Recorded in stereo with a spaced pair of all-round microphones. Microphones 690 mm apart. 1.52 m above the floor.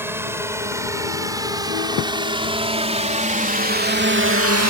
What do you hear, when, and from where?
0.0 s a drone: 5° right (ahead or behind); by 4.7 s 25° right (ahead or behind)